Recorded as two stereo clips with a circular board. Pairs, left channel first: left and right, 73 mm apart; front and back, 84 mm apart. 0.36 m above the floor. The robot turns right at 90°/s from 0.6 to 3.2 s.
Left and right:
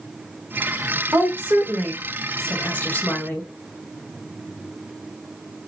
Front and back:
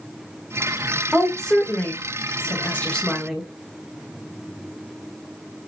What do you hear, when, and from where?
1.1 s a woman speaking: 100° right, 1.4 m; by 3.5 s 85° left, 1.4 m